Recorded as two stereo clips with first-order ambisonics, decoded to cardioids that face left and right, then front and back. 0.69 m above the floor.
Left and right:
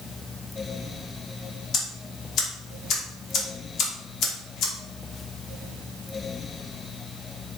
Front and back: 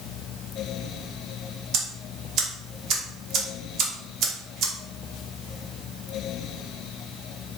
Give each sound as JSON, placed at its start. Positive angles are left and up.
{"t": 1.7, "sound": "ticking", "azimuth_deg": 135, "distance_m": 0.8}